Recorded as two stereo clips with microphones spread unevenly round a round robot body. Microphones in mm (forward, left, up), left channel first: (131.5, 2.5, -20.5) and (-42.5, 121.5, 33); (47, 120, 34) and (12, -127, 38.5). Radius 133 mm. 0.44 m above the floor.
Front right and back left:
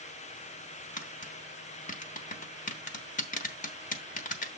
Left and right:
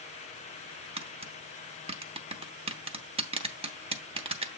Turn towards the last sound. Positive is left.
turn(degrees=-35)